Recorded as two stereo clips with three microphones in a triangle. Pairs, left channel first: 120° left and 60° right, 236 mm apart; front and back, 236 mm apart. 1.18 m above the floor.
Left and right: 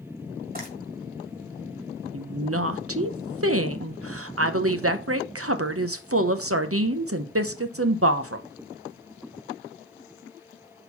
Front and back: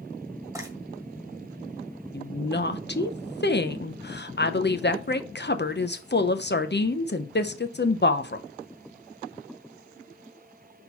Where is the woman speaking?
45° right, 0.8 m.